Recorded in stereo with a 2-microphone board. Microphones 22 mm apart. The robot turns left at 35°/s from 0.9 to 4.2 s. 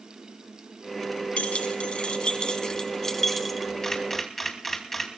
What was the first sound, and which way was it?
Keys jangling, 75° left.